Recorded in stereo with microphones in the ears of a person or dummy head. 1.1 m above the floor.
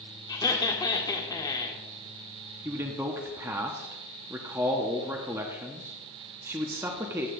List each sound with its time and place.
0.3 s laughter: 20° left (ahead or behind), 1.3 m
2.6 s a man speaking: 15° right (ahead or behind), 0.6 m